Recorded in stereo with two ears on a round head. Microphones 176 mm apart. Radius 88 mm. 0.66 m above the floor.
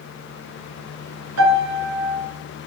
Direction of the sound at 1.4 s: 85° right.